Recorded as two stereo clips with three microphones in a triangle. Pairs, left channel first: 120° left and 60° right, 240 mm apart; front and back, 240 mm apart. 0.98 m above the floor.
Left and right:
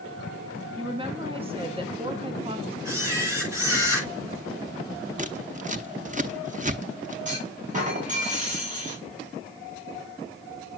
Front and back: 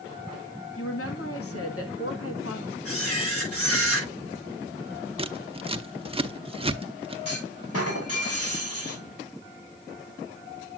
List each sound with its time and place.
0.8 s a woman speaking: 5° left, 1.7 m
2.9 s a camera shutter: 20° left, 7.5 m
5.2 s scissors: 115° right, 0.7 m
7.2 s a clunk: straight ahead, 5 m